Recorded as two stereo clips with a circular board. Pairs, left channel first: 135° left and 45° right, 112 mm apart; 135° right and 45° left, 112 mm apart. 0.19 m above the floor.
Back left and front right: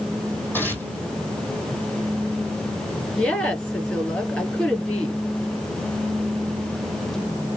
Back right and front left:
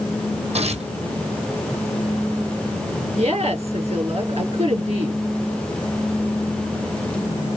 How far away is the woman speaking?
About 4.5 m.